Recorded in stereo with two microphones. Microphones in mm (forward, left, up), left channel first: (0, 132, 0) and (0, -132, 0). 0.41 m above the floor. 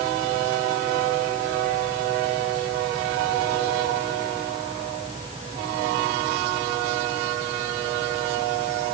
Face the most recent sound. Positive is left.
No sound to turn to.